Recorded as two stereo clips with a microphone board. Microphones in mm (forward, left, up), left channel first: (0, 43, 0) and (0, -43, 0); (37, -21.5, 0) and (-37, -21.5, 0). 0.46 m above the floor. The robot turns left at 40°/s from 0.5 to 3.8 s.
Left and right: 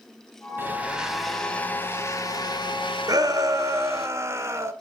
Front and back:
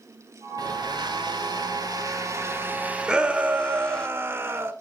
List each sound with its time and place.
0.6 s a blender: 155° right, 1.3 m; by 4.1 s 75° left, 1.3 m
3.1 s a shout: 105° right, 1.3 m; by 4.7 s 135° right, 1.3 m